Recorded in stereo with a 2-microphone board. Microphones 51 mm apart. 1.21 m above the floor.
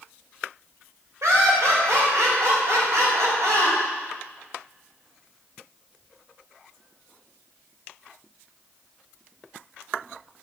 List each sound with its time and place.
1.2 s laughter: 80° right, 5 m